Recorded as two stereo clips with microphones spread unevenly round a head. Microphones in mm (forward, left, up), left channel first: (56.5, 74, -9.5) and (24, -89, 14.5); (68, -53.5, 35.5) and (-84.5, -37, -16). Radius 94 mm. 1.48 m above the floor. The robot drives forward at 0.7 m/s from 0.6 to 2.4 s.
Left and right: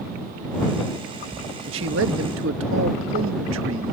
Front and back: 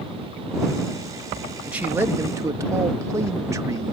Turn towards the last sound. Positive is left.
turn(degrees=-115)